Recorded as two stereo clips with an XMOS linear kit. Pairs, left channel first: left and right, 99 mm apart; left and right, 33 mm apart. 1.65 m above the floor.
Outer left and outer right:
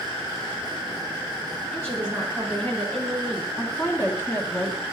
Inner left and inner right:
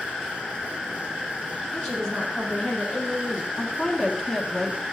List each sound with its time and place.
1.7 s a woman speaking: 20° left (ahead or behind), 5.5 m
3.6 s a woman speaking: 25° left (ahead or behind), 1.1 m